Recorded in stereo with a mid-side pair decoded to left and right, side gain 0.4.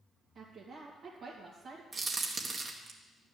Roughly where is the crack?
Ahead right.